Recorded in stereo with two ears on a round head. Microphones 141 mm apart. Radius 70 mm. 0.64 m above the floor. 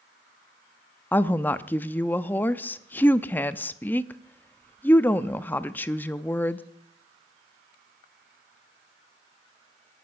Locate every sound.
1.1 s a woman speaking: 10° left (ahead or behind), 0.5 m